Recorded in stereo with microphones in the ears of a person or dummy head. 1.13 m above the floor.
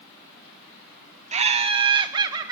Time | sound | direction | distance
1.3 | laughter | 35° right (ahead or behind) | 0.6 m